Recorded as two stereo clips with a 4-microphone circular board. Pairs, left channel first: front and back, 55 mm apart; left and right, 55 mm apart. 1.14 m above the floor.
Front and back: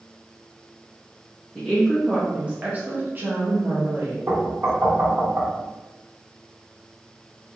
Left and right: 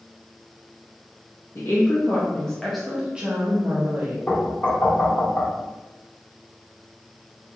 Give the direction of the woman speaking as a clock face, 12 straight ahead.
9 o'clock.